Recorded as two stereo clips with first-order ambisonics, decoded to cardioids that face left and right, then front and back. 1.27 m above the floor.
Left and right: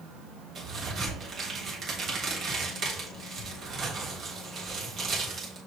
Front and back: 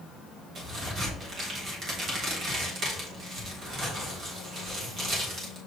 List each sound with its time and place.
0.6 s a crack: 140° right, 1.3 m